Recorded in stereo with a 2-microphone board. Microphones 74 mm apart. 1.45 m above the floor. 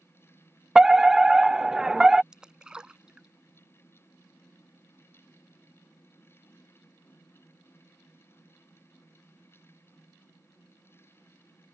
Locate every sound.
0.8 s a fire alarm: 10° right (ahead or behind)
2.3 s a splash: 10° right (ahead or behind)